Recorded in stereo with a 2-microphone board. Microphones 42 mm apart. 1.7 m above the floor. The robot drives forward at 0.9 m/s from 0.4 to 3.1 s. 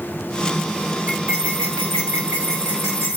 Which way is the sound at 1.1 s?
75° right (ahead or behind).